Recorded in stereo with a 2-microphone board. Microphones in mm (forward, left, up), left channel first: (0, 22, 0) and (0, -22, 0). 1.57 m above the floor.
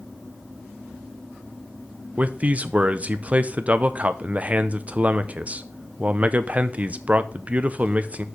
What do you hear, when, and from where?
2.2 s a man speaking: 30° right (ahead or behind), 0.6 m